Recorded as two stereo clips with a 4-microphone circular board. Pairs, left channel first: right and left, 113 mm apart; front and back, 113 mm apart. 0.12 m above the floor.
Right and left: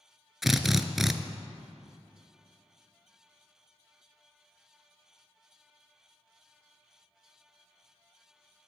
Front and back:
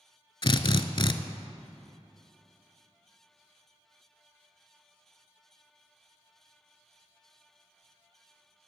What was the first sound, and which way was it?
A drill, straight ahead.